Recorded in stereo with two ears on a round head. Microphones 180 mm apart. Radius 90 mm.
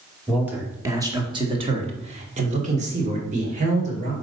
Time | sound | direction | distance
0.3 | a man speaking | 5° right (ahead or behind) | 1.3 m